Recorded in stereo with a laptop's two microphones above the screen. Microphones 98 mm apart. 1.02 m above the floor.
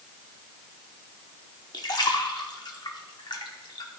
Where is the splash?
45° left (ahead or behind), 0.8 m.